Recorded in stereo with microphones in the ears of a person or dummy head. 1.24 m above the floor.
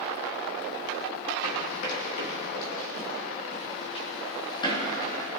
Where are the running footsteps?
60° left (ahead or behind), 3 m; by 5.3 s 20° left (ahead or behind), 3 m.